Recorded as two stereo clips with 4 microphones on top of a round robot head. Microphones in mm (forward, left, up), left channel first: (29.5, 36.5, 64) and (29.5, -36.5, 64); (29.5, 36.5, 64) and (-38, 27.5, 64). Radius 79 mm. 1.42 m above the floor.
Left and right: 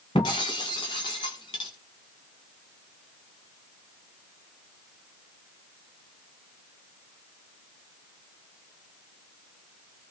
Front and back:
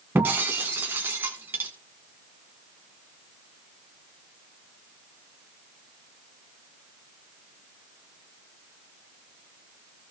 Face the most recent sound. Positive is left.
turn(degrees=130)